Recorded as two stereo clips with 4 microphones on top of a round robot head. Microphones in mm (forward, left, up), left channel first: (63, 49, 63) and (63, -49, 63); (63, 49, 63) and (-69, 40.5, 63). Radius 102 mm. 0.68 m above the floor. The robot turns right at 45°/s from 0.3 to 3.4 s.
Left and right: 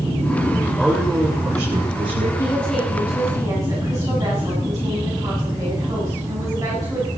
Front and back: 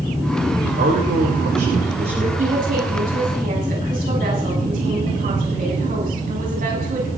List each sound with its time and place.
0.6 s a man speaking: 165° left, 3.5 m; by 2.3 s 120° right, 3.5 m
2.4 s a woman speaking: 160° left, 7 m; by 7.1 s 155° right, 7 m